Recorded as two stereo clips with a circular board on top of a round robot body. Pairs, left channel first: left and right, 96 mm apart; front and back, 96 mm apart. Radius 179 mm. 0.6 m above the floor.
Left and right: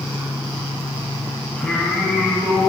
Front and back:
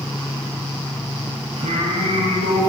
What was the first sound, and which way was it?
Singing, 170° left.